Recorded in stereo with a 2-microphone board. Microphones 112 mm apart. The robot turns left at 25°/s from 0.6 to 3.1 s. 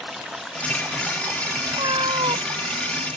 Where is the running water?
Straight ahead; by 3.2 s 65° right.